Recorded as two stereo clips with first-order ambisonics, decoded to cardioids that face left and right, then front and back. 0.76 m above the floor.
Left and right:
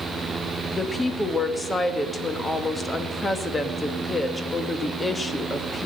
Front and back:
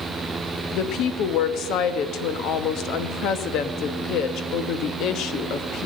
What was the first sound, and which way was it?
A woman speaking, 15° left.